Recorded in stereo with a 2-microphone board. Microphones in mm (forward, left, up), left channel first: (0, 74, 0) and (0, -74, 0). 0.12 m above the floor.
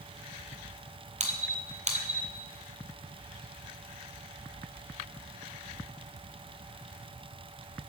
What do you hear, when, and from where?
1.2 s a squeak: 55° right (ahead or behind), 0.9 m